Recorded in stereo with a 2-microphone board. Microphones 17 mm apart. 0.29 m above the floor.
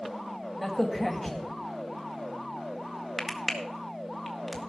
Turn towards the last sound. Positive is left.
turn(degrees=10)  # may be behind; listen again after turning